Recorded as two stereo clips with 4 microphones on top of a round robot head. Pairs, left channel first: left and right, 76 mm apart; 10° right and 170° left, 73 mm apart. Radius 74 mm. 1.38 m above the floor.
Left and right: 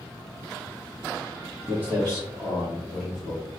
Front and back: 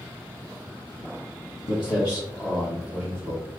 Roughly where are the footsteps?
Ahead right.